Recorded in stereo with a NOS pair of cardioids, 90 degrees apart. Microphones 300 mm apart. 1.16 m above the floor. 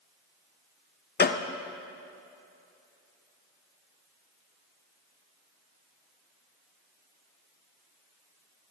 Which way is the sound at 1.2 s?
30° left.